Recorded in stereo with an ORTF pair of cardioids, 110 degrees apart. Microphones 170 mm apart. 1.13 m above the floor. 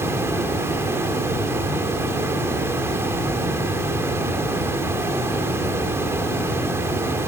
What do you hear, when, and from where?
0.0 s running water: 15° right, 2.5 m